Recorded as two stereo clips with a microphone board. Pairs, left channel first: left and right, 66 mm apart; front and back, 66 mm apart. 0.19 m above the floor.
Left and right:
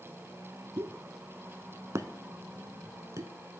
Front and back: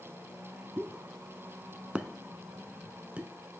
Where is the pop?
110° right, 0.6 m.